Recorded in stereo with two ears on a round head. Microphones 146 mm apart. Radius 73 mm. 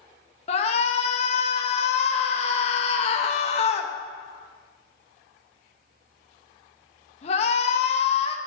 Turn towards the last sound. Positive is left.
turn(degrees=40)  # may be behind; listen again after turning